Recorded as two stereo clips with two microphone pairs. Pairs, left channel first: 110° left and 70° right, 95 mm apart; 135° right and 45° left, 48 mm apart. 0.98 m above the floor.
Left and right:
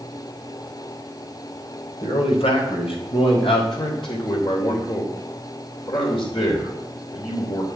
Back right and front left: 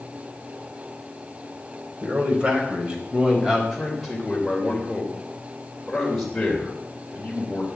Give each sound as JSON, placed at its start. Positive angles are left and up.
{"t": 2.0, "sound": "a man speaking", "azimuth_deg": 105, "distance_m": 4.0}
{"t": 3.7, "sound": "a man speaking", "azimuth_deg": 135, "distance_m": 3.0}